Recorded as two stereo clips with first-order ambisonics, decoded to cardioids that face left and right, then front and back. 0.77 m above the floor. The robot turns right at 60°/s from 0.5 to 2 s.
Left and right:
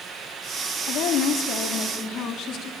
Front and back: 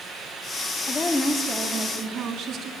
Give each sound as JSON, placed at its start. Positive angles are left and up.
{"t": 0.9, "sound": "a woman speaking", "azimuth_deg": 65, "distance_m": 1.5}